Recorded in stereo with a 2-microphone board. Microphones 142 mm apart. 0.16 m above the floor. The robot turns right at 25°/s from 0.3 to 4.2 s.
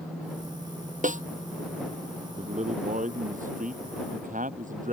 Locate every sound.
1.0 s a snare drum: 70° right (ahead or behind); by 1.2 s 65° right (ahead or behind)
2.4 s a man speaking: 125° right; by 4.9 s 75° right